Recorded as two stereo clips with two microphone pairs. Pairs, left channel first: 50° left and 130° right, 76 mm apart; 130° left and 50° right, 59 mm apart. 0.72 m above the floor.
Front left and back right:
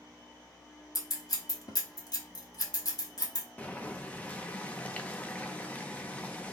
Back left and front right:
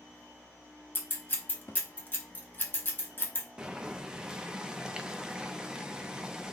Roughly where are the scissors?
Left.